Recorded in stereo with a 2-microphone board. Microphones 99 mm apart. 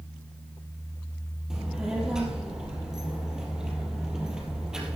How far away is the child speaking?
About 2.5 m.